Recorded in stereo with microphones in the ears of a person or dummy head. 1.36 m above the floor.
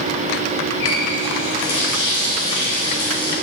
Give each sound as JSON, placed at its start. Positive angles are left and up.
{"t": 0.8, "sound": "a running tap", "side_deg": 85, "distance_m": 4.5}